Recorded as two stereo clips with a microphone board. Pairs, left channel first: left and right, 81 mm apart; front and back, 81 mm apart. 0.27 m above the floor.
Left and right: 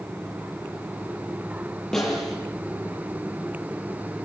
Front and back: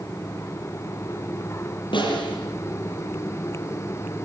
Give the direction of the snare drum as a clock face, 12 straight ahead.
12 o'clock.